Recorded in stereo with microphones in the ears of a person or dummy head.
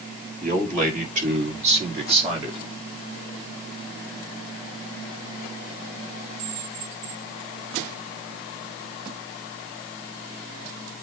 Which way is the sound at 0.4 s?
45° right (ahead or behind).